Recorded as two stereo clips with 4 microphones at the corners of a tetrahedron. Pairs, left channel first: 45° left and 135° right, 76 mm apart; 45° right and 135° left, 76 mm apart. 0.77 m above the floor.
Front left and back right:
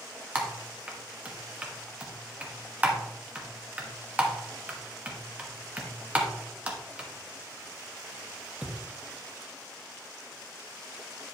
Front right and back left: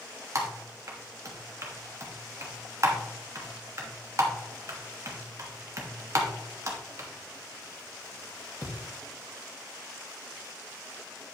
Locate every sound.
0.3 s typing on a keyboard: 160° left, 1.2 m